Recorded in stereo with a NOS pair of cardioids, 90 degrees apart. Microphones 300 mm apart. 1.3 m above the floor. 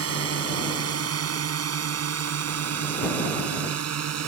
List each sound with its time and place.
0.0 s a drone: 50° right; by 4.3 s 60° right